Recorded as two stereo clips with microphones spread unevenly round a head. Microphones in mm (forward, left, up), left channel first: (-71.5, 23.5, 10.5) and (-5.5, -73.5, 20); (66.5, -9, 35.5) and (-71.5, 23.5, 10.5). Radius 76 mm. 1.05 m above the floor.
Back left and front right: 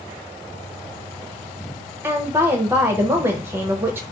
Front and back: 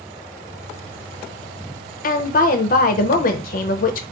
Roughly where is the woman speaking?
Ahead.